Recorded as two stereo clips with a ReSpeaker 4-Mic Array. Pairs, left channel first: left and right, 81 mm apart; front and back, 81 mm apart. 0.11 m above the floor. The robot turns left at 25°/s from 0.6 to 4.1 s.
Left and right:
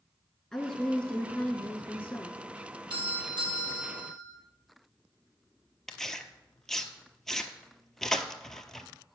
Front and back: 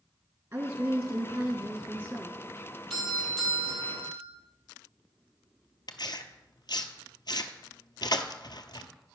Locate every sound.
0.5 s a woman speaking: 165° left, 1.3 m; by 2.4 s 120° left, 1.3 m
2.9 s a doorbell: 80° right, 3.5 m; by 4.2 s 110° right, 3.5 m
5.9 s tearing paper: 5° left, 0.8 m